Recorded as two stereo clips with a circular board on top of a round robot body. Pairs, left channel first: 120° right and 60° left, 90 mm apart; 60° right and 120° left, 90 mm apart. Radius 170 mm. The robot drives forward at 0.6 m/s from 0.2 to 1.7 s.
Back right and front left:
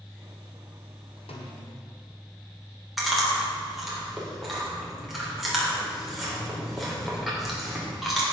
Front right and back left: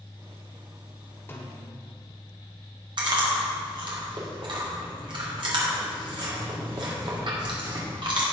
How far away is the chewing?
About 3.5 m.